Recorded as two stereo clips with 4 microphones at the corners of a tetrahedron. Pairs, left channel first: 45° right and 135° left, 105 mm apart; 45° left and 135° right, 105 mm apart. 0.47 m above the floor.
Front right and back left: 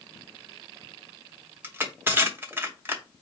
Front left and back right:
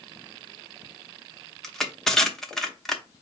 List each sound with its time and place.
1.6 s crushing: 125° left, 0.9 m